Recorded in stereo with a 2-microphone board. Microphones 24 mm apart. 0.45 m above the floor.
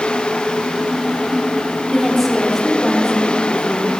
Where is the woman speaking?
5° left (ahead or behind), 1.4 m.